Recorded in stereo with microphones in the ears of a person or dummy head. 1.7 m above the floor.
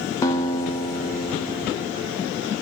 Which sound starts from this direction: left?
A guitar, at 0.2 s.